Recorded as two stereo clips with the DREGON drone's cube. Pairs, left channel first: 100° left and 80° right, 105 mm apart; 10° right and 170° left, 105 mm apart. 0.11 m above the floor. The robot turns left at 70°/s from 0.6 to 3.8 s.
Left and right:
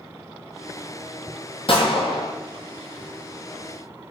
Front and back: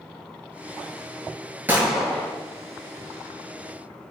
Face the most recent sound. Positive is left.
turn(degrees=-45)